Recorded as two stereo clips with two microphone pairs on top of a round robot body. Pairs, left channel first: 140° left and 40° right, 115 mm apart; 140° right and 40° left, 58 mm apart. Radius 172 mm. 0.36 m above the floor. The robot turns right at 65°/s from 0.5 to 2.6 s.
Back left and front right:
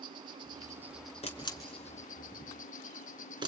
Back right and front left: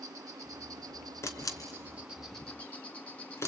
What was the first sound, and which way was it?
An insect, 15° left.